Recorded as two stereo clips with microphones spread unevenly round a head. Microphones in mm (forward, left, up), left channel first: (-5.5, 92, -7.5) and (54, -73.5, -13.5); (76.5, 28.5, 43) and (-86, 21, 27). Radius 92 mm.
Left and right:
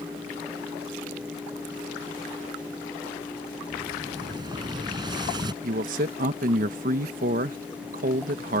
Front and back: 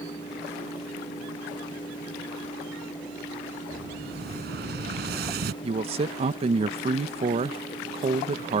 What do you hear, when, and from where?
3.7 s an explosion: 140° right
5.6 s a man speaking: 120° right